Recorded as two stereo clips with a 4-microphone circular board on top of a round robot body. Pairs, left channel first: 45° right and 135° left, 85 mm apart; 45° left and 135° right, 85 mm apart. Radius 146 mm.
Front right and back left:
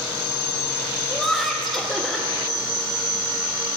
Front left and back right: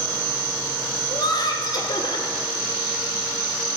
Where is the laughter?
45° left, 1.8 m.